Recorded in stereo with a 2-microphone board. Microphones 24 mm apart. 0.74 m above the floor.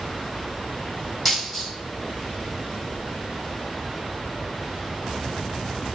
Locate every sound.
1.2 s a dropped coin: 5° left (ahead or behind), 1.8 m